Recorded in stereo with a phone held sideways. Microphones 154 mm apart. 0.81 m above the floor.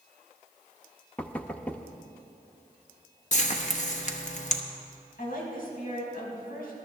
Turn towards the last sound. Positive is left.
turn(degrees=65)  # may be behind; listen again after turning